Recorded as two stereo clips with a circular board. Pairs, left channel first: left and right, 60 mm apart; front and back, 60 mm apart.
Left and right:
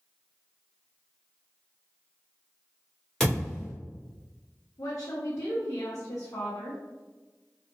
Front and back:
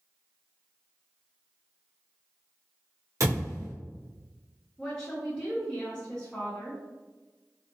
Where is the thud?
170° left, 1.5 m.